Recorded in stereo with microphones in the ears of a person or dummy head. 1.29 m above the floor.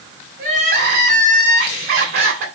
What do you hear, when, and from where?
0.4 s crying: 65° right (ahead or behind), 3 m